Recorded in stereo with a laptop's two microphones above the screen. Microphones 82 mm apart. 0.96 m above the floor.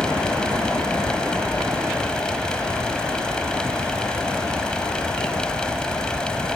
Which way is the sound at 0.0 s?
10° left (ahead or behind).